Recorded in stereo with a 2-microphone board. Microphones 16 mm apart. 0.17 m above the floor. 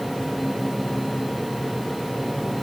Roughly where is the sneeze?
No sneeze in this recording.